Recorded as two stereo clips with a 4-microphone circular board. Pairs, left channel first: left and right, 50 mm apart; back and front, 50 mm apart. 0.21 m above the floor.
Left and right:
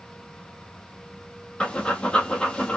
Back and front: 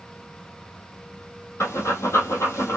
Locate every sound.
1.6 s breathing: 160° left, 1.4 m